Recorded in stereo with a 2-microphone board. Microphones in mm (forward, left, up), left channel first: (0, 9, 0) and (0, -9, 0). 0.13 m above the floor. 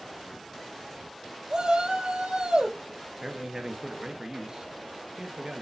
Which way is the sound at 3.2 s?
40° right (ahead or behind).